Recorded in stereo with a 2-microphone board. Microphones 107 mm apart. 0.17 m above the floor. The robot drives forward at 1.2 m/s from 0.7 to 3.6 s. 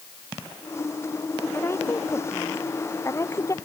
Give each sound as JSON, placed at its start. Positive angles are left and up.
{"t": 1.5, "sound": "a woman speaking", "side_deg": 25}